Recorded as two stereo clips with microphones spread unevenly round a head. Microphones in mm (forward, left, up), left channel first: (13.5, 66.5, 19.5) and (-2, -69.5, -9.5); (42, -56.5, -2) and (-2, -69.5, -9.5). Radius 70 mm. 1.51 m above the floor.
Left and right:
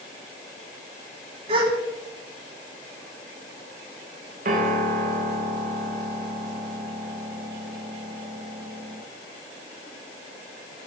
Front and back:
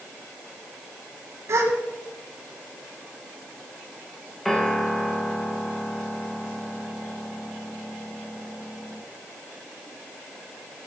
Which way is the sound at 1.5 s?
145° right.